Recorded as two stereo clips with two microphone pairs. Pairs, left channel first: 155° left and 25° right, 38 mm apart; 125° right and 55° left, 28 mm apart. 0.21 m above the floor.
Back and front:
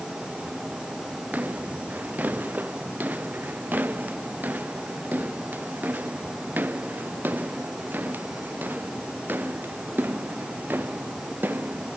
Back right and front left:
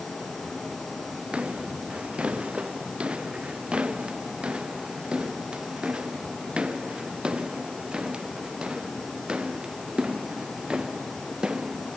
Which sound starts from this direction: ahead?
Footsteps, at 1.3 s.